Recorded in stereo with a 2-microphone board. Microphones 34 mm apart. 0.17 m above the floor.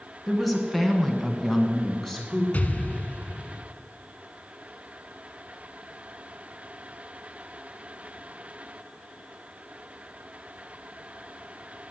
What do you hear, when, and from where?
0.3 s a woman speaking: centre (ahead or behind), 2.5 m; by 2.4 s 10° left (ahead or behind), 1.7 m
2.5 s an explosion: 45° left (ahead or behind), 0.6 m